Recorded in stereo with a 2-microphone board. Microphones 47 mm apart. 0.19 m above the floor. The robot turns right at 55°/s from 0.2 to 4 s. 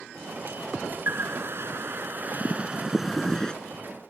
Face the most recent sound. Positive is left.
turn(degrees=45)